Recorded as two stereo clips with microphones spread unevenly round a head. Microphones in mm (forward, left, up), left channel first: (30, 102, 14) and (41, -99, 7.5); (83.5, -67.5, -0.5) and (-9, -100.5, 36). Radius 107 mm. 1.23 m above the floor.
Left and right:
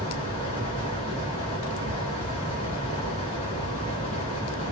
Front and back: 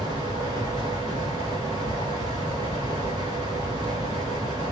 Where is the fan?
160° left, 1.0 m.